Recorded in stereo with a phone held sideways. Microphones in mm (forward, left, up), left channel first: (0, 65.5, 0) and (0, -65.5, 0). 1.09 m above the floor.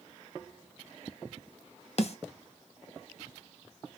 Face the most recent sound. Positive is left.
turn(degrees=50)  # may be behind; listen again after turning